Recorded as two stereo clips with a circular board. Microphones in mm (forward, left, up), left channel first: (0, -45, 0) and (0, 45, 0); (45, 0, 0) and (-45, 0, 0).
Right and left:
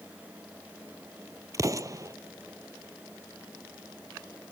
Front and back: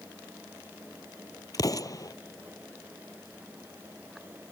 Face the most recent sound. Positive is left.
turn(degrees=45)